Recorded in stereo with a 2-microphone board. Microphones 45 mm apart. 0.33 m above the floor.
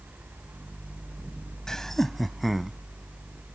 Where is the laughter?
15° left (ahead or behind); by 2.8 s 5° right (ahead or behind).